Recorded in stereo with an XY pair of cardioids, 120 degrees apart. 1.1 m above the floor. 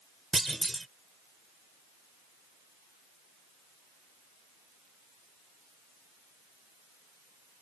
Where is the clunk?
10° right.